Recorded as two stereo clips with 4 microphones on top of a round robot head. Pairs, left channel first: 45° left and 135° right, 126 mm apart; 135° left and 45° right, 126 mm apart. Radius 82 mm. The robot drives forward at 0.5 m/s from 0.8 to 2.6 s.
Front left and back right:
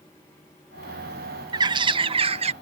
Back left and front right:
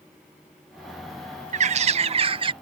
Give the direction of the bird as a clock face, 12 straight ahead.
3 o'clock.